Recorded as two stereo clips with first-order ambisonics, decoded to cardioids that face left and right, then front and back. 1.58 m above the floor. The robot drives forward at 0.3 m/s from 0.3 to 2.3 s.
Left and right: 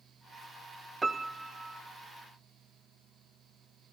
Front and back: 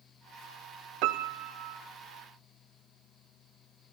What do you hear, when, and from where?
1.0 s a piano: 170° right, 0.6 m